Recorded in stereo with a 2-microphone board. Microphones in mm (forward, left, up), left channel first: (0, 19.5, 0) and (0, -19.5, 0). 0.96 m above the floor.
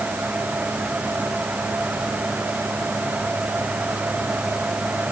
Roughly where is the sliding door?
I don't hear a sliding door.